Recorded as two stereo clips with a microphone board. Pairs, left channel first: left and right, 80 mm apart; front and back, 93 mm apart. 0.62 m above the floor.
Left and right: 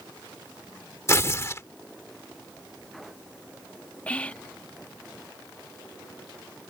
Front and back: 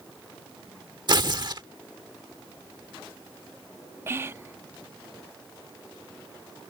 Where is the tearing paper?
145° left.